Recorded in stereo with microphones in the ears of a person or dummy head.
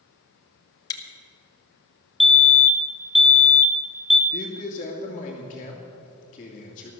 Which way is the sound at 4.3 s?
30° left (ahead or behind).